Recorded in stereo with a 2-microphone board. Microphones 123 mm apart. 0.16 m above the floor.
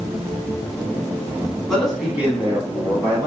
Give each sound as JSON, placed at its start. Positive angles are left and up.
{"t": 1.7, "sound": "a man speaking", "side_deg": 5, "distance_m": 1.1}